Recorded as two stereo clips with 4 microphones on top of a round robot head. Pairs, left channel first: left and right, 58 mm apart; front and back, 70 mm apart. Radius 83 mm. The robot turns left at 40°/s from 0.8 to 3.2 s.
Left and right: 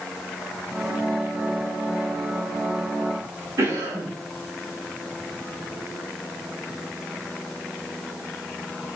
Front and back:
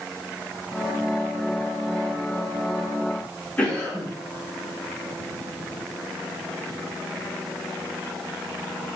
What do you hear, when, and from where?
3.6 s a cough: 70° right, 3.5 m